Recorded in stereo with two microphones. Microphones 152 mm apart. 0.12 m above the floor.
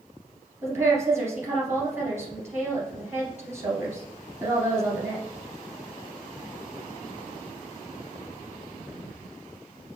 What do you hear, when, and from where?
0.6 s a woman speaking: 20° right (ahead or behind), 1.9 m